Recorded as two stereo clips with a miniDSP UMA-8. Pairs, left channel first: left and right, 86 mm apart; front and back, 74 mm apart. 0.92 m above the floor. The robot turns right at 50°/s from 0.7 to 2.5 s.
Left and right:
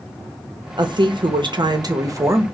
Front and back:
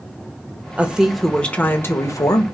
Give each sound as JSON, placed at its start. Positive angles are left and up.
{"t": 0.8, "sound": "a woman speaking", "azimuth_deg": -110, "distance_m": 0.7}